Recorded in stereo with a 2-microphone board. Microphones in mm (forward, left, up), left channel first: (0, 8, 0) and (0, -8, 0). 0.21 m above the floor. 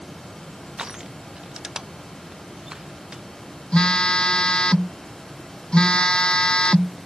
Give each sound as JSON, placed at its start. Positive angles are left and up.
{"t": 0.8, "sound": "crushing", "side_deg": -40}
{"t": 3.7, "sound": "a phone buzzing", "side_deg": 80}